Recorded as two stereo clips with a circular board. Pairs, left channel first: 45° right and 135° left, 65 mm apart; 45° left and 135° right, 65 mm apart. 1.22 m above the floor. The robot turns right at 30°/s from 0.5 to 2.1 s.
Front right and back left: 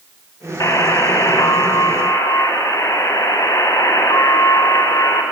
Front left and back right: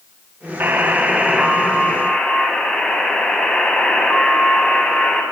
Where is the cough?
I don't hear a cough.